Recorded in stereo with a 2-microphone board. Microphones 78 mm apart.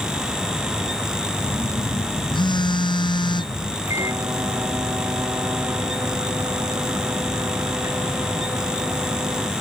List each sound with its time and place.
1.4 s a phone buzzing: 80° left
3.9 s a microwave: 40° right (ahead or behind)